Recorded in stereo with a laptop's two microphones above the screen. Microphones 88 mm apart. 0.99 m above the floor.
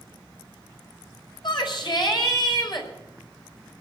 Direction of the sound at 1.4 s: 60° left (ahead or behind).